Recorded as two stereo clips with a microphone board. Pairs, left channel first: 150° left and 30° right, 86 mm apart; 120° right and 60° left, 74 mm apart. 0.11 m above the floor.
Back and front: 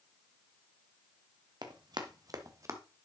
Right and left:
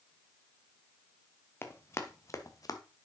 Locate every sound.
1.6 s running footsteps: 65° right, 1.8 m; by 2.8 s 85° right, 1.4 m